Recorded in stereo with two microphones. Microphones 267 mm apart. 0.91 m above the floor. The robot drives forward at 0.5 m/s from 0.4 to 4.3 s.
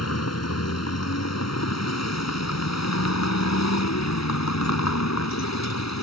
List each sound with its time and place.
0.0 s a vehicle: 70° left (ahead or behind); by 6.0 s 85° left